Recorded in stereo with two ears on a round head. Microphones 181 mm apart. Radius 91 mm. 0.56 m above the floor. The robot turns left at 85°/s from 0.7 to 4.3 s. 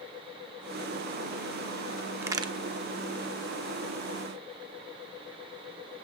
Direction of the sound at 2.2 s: 10° right (ahead or behind).